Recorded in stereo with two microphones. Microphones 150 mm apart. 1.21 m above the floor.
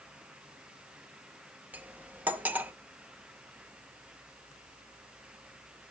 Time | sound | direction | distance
1.7 | cutlery clinking | 10° right (ahead or behind) | 0.6 m